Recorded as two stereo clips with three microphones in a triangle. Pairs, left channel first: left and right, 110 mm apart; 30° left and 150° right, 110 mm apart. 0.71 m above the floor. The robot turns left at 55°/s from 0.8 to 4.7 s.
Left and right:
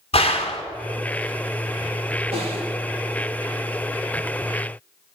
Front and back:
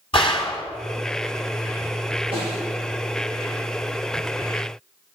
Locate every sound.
0.1 s a gunshot: 65° left, 1.7 m
2.3 s a snare drum: 115° right, 4.5 m; by 2.6 s 135° right, 4.5 m